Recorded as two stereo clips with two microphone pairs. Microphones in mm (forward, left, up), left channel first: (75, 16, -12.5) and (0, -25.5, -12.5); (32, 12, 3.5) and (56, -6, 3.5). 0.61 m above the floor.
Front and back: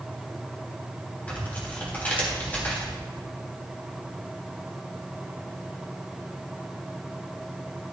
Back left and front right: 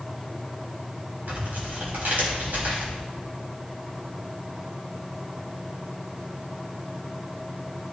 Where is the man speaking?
No man speaking in this recording.